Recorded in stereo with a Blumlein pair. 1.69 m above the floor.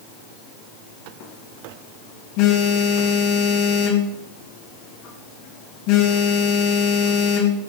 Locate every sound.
1.2 s a phone buzzing: 45° left, 3 m